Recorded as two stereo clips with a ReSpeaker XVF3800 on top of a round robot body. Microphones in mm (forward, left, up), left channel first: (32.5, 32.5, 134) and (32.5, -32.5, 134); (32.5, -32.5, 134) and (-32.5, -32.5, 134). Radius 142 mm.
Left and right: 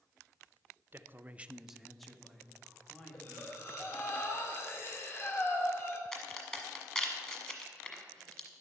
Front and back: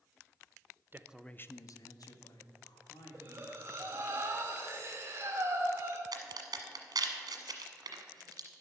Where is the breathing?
135° left, 1.7 m.